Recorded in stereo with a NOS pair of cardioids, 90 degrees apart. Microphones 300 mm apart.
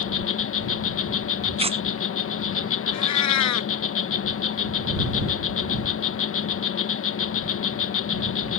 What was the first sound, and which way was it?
An insect, 45° left.